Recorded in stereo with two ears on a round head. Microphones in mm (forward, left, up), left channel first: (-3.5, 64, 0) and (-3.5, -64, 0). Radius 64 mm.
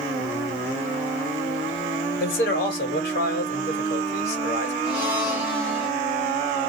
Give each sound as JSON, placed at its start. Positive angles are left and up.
{"t": 2.2, "sound": "a man speaking", "side_deg": 75, "distance_m": 1.5}
{"t": 4.8, "sound": "a blender", "side_deg": -15, "distance_m": 1.5}